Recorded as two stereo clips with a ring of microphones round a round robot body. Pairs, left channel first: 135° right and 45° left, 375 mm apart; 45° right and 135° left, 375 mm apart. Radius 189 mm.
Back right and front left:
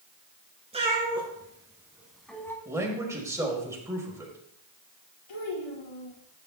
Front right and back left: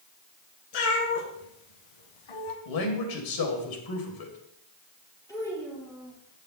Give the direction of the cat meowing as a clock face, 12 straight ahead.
1 o'clock.